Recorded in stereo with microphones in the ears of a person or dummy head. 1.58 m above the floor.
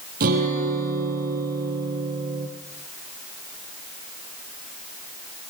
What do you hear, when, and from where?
0.2 s a guitar: 60° right (ahead or behind), 9 m